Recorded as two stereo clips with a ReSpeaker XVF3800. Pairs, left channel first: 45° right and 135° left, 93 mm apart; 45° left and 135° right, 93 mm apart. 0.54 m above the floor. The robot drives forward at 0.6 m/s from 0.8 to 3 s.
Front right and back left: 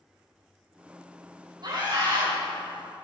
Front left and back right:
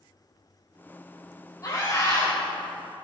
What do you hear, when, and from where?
1.6 s a scream: 100° left, 3 m; by 2.3 s 110° left, 3 m